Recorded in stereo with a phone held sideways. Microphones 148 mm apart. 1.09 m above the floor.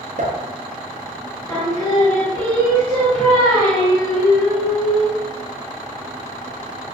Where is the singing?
10° left (ahead or behind), 1.3 m.